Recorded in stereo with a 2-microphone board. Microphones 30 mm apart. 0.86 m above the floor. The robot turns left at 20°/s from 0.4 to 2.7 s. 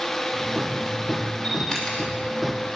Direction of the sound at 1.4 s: 30° left (ahead or behind).